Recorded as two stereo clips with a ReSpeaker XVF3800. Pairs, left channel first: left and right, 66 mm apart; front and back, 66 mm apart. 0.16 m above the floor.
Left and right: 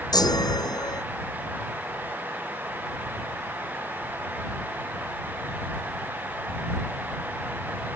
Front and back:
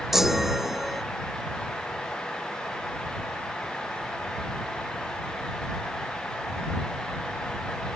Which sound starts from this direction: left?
A chime, at 0.1 s.